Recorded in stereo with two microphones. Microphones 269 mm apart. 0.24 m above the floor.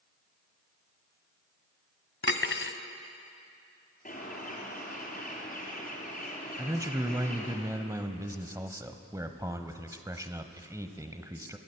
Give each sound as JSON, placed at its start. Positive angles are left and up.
{"t": 2.2, "sound": "cutlery clinking", "side_deg": 50, "distance_m": 1.0}
{"t": 4.0, "sound": "a bird", "side_deg": 30, "distance_m": 4.0}
{"t": 6.6, "sound": "a man speaking", "side_deg": -10, "distance_m": 0.9}